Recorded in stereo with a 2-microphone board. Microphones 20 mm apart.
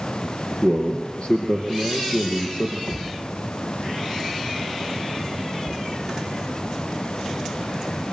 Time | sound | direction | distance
0.6 | a man speaking | 50° left (ahead or behind) | 3 m
2.9 | a thud | 65° left (ahead or behind) | 4 m
5.7 | knocking | 65° left (ahead or behind) | 2.5 m